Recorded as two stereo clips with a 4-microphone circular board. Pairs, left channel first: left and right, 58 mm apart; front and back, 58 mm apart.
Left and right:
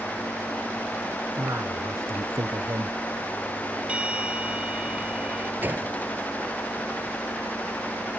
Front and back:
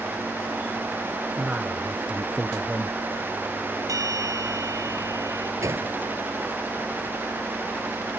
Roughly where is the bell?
Behind.